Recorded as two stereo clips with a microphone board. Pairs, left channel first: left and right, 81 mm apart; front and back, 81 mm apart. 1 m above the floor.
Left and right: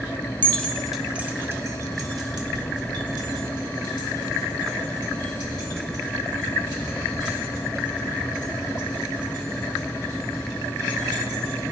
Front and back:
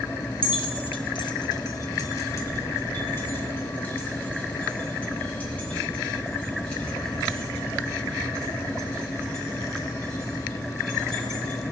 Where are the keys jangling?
20° left, 0.6 m; by 11.6 s 80° right, 6 m.